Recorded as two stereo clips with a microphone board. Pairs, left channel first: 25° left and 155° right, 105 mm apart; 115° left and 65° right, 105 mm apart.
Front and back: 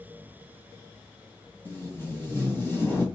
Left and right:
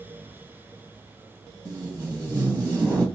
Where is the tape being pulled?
35° right, 1.3 m.